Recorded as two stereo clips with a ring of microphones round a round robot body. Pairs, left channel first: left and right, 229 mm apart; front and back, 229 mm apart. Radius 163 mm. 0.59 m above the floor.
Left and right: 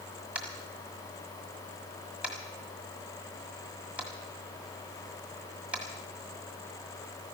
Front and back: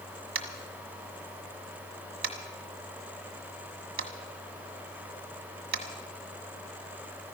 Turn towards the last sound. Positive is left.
turn(degrees=-175)